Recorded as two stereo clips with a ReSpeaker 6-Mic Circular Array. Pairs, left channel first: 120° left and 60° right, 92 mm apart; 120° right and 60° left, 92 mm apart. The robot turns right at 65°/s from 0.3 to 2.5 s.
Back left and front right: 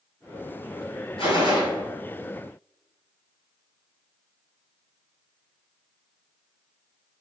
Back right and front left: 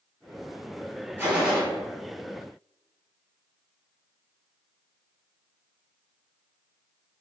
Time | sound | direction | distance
1.2 | a gunshot | 130° left | 1.2 m